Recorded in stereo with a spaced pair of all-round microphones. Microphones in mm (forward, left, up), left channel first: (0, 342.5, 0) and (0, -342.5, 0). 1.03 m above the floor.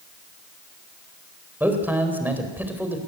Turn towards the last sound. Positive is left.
turn(degrees=-5)  # may be behind; listen again after turning